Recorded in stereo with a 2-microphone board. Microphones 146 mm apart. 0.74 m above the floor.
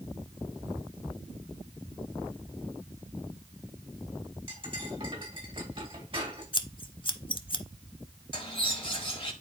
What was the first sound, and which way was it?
Cutlery clinking, 35° right (ahead or behind).